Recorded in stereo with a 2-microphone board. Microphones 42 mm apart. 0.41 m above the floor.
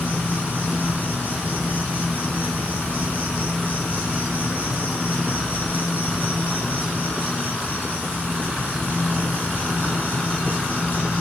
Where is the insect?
45° left (ahead or behind), 2.5 m.